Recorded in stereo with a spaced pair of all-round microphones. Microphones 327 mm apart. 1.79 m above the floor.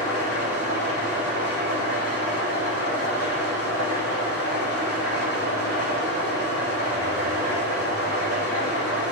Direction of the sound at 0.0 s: 65° right (ahead or behind).